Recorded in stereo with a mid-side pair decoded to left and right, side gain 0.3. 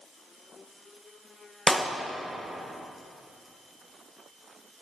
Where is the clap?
10° left, 1.4 m.